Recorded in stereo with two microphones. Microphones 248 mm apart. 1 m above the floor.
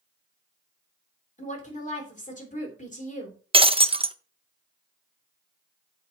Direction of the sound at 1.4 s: 30° left (ahead or behind).